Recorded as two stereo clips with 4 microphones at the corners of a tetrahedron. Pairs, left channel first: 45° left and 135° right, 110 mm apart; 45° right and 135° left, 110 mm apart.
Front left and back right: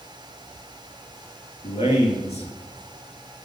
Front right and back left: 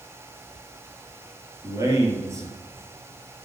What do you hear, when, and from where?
1.6 s a man speaking: 70° left, 4.5 m